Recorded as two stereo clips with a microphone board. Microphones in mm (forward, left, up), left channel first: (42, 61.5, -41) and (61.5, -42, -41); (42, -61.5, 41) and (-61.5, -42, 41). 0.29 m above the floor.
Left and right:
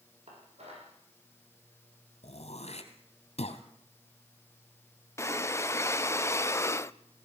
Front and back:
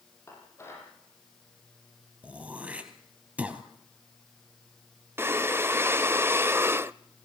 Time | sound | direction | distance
0.3 | dishes clattering | 75° right | 8.5 m
2.2 | throat clearing | 90° left | 2.5 m
5.2 | breathing | 125° left | 0.5 m